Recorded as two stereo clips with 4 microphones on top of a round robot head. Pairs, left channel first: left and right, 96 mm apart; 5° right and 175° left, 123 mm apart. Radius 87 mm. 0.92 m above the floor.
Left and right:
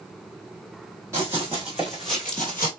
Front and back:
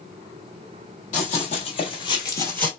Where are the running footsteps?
20° right, 1.4 m; by 2.7 s 50° left, 0.9 m.